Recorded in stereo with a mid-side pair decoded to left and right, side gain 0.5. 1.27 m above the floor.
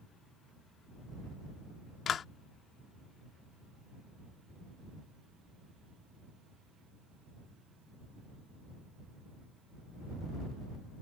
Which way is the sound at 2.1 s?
50° left.